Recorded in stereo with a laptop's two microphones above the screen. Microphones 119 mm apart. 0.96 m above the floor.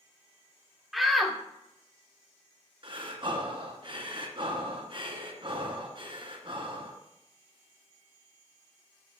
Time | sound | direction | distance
0.9 | a shout | centre (ahead or behind) | 1.0 m
2.8 | breathing | 45° right (ahead or behind) | 1.6 m